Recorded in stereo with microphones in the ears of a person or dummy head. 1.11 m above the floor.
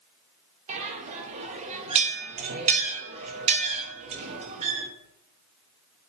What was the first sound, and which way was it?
A bell, 35° right (ahead or behind).